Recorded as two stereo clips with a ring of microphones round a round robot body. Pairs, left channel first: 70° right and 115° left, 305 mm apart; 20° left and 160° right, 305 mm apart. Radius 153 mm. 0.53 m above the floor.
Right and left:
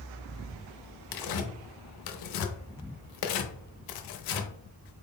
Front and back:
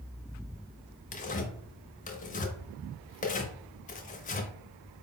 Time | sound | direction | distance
1.1 | tearing paper | 45° right | 0.6 m